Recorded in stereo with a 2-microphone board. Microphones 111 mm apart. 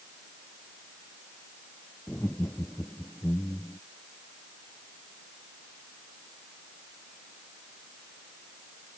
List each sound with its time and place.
2.1 s laughter: 20° left (ahead or behind); by 3.8 s 25° left (ahead or behind)